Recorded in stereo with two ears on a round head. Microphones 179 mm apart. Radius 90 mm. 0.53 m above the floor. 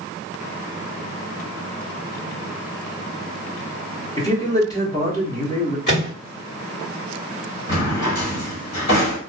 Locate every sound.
4.2 s a man speaking: 20° left (ahead or behind), 1.1 m
5.9 s a microwave: 55° left (ahead or behind), 1.8 m
7.7 s a drawer: 60° left (ahead or behind), 1.6 m